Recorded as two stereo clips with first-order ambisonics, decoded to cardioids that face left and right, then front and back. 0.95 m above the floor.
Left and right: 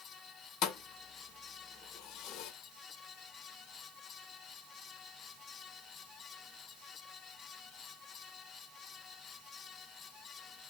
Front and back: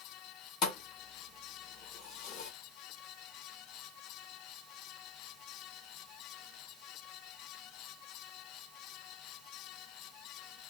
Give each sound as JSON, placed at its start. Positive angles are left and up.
{"t": 0.6, "sound": "a thud", "azimuth_deg": 45, "distance_m": 0.8}